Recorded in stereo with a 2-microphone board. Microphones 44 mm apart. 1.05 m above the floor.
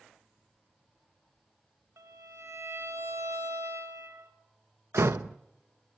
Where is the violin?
85° right, 1.9 m.